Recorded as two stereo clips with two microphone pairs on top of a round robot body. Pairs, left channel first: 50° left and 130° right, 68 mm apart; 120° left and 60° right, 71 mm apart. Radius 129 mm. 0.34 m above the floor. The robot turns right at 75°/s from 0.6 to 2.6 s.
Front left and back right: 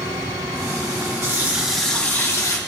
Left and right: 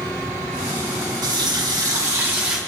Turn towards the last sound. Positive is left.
turn(degrees=20)